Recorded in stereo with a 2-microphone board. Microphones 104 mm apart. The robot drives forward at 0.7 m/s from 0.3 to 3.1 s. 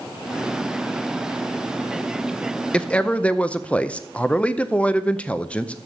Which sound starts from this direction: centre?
A man speaking, at 2.7 s.